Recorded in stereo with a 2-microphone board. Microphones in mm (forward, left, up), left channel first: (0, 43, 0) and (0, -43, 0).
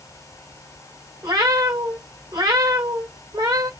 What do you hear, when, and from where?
1.2 s a cat meowing: 55° right (ahead or behind), 1.5 m